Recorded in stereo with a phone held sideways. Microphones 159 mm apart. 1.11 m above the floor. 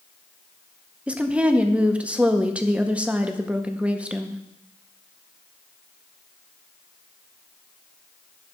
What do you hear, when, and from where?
1.1 s a woman speaking: 10° right (ahead or behind), 0.7 m